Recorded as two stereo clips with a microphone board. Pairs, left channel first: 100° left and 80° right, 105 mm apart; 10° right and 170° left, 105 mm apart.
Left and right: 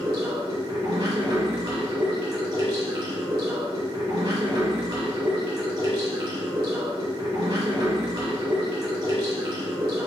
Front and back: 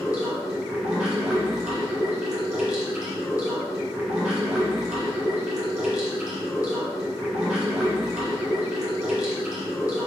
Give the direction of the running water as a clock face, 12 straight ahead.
4 o'clock.